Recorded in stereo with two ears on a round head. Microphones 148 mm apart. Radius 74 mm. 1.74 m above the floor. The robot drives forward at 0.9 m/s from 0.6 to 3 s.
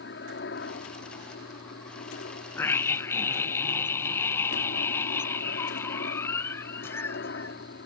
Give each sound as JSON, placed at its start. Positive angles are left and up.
{"t": 0.0, "sound": "a helicopter", "side_deg": 75}
{"t": 2.6, "sound": "a scream", "side_deg": 15}